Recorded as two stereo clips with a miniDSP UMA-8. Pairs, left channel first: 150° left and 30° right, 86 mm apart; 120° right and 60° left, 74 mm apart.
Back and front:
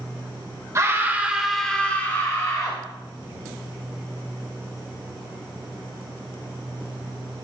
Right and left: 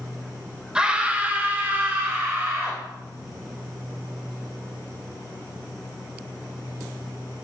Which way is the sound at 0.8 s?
10° right.